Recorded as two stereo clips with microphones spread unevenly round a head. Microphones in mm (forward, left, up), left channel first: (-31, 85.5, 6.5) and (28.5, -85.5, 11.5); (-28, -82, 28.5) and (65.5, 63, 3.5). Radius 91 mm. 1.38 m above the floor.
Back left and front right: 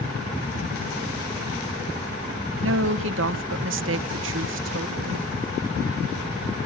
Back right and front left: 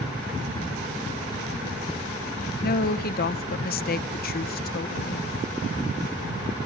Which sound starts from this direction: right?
A woman speaking, at 2.6 s.